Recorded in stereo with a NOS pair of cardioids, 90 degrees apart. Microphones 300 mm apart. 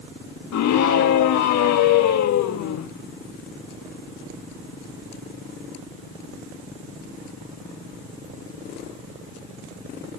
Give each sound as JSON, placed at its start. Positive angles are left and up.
{"t": 0.5, "sound": "a scream", "azimuth_deg": 65, "distance_m": 1.8}